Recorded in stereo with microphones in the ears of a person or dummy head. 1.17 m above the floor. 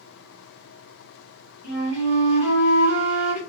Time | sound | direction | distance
1.6 | a flute | 10° right (ahead or behind) | 2.5 m